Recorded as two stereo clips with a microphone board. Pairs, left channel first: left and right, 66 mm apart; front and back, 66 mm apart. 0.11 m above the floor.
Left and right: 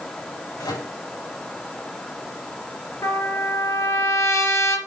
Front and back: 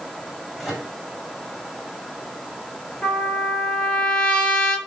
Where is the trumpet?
70° left, 2.5 m.